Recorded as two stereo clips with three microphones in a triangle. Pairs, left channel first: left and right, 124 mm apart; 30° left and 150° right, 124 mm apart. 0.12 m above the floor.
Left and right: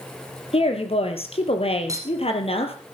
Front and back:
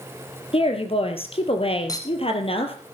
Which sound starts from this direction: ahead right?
A clink, at 1.9 s.